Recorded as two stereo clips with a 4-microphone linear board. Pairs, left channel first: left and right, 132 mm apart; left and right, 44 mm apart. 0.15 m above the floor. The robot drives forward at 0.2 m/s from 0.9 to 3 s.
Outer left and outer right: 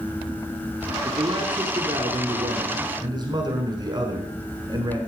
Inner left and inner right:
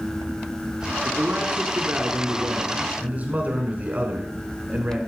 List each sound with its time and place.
1.1 s a man speaking: 35° right (ahead or behind), 1.2 m